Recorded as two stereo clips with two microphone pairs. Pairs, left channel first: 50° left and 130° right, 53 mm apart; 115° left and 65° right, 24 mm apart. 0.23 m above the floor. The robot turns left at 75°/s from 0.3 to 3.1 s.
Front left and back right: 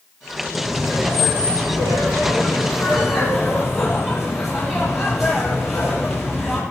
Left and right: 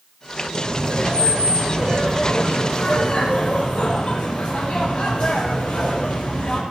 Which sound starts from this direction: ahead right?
Laughter, at 0.5 s.